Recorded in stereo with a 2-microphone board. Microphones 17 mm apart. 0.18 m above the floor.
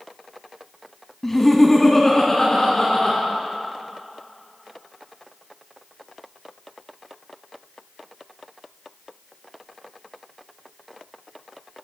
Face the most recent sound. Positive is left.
turn(degrees=15)  # may be behind; listen again after turning